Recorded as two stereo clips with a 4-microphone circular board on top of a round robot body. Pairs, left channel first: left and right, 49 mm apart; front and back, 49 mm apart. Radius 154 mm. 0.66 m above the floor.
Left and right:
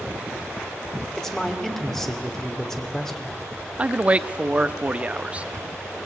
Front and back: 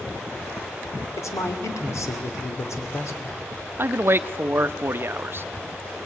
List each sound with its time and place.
1.2 s a man speaking: 10° left, 2.5 m
3.8 s a man speaking: 150° right, 0.8 m